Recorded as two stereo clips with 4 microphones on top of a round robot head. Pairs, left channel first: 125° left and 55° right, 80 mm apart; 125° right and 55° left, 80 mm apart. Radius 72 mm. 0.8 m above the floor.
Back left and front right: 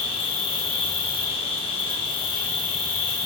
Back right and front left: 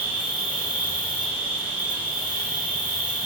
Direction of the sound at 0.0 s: 135° left.